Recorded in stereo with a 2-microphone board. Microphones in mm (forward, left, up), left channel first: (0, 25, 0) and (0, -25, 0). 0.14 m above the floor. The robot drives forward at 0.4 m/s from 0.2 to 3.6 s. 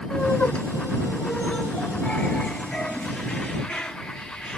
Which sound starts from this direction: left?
Laughter, at 0.1 s.